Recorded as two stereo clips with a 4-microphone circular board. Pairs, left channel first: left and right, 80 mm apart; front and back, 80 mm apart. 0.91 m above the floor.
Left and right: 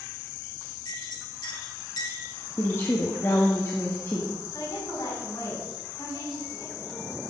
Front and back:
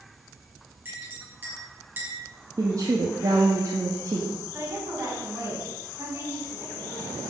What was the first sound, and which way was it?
A clink, 115° left.